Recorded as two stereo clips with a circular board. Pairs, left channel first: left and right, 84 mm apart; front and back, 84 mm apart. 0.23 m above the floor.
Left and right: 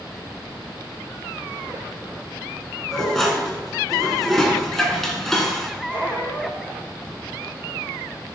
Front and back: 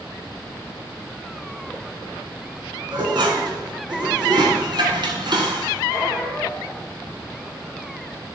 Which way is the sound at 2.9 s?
175° left.